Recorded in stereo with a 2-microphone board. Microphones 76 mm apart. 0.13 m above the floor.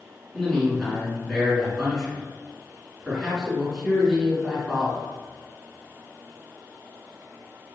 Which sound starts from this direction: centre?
A man speaking, at 0.3 s.